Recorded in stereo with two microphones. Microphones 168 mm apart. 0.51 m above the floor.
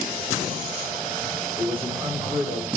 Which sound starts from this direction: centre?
A man speaking, at 1.6 s.